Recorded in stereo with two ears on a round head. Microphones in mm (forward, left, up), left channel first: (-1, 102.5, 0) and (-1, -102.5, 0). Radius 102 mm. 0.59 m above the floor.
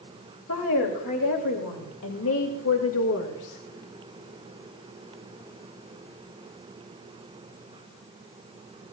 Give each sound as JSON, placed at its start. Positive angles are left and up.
{"t": 0.5, "sound": "a woman speaking", "side_deg": 65, "distance_m": 3.0}